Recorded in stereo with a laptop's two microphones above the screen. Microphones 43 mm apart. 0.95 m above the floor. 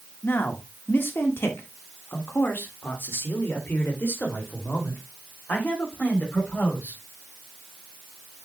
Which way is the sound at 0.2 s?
55° left (ahead or behind).